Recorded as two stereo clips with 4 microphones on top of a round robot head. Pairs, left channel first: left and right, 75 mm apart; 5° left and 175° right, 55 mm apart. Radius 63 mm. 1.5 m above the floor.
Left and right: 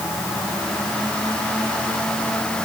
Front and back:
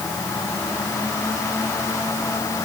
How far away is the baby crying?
I don't hear a baby crying.